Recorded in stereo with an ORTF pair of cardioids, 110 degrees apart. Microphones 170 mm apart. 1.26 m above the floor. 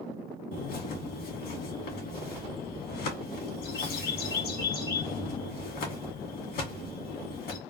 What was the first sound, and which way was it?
A bird, 70° left.